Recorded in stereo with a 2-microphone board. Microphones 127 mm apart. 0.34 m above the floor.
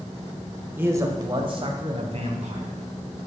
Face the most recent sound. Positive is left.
turn(degrees=-60)  # may be behind; listen again after turning